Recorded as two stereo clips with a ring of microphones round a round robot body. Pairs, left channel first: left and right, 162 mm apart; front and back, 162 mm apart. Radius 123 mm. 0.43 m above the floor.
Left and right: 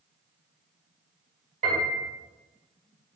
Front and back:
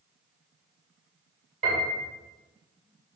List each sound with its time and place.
1.6 s a piano: 140° right, 2.5 m